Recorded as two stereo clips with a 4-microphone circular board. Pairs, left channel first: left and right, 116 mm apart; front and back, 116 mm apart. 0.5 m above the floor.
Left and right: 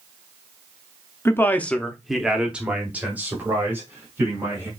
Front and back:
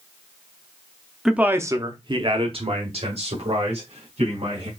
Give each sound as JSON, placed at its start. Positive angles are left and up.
{"t": 1.2, "sound": "a man speaking", "azimuth_deg": 100, "distance_m": 0.7}